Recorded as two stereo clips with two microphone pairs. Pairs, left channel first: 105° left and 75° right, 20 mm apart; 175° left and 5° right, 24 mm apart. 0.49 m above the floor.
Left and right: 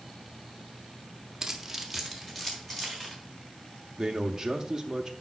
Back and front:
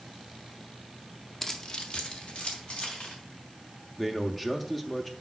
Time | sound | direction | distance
1.4 | keys jangling | 135° right | 0.8 m
4.0 | a man speaking | 130° right | 0.7 m